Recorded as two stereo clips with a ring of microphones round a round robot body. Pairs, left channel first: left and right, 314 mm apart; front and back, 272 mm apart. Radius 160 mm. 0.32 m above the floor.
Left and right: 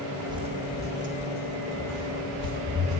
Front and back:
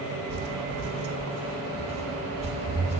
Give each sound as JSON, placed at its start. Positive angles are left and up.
{"t": 0.3, "sound": "footsteps", "azimuth_deg": -170, "distance_m": 0.7}